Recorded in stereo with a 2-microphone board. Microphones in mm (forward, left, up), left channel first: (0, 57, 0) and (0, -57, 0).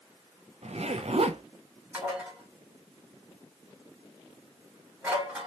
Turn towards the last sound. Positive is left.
turn(degrees=-15)  # may be behind; listen again after turning